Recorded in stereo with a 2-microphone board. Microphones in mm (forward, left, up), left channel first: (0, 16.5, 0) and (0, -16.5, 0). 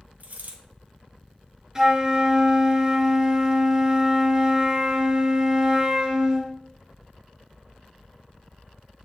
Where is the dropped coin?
60° right (ahead or behind), 1.8 m.